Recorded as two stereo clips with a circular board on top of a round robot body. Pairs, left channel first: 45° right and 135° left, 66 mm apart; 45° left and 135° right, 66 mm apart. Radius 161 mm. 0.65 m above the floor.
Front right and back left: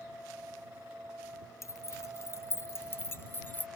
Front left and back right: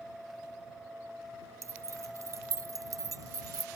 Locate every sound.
1.6 s keys jangling: 90° right; by 3.7 s 105° right